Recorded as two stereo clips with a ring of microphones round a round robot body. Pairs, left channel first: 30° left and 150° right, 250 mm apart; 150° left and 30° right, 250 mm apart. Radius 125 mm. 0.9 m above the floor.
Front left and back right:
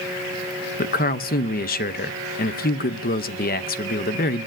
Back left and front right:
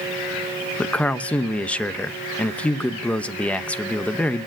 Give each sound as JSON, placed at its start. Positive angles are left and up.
{"t": 0.8, "sound": "a man speaking", "azimuth_deg": 65, "distance_m": 0.8}